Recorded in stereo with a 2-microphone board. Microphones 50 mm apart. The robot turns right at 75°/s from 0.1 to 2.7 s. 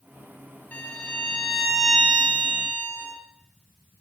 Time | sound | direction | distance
0.7 | a violin | 115° left | 1.5 m